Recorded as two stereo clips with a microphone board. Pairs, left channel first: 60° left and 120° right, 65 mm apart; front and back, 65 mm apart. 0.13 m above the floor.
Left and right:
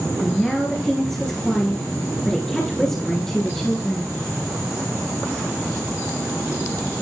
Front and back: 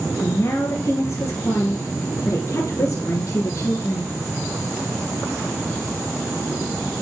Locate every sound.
0.2 s a woman speaking: 20° right, 2 m